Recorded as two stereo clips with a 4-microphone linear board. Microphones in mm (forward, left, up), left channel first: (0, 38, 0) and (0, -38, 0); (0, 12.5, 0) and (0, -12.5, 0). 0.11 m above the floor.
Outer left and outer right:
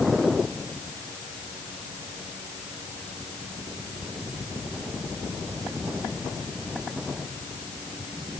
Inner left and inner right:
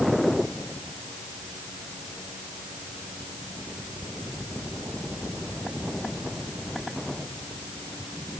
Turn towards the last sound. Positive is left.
No sound to turn to.